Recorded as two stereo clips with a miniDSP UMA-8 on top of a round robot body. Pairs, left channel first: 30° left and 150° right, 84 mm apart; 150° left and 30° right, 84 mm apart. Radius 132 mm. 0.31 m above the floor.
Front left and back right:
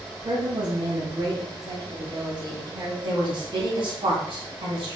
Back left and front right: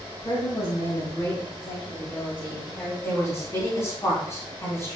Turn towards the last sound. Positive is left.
turn(degrees=-155)